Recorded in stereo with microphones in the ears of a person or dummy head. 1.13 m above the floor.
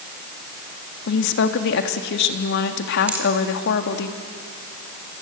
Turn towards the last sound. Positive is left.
turn(degrees=-10)  # may be behind; listen again after turning